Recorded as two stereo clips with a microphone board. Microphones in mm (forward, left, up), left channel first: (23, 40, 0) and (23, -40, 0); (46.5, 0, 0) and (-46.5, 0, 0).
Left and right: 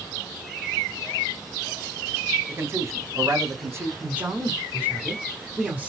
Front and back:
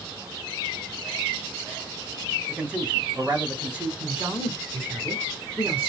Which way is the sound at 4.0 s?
135° right.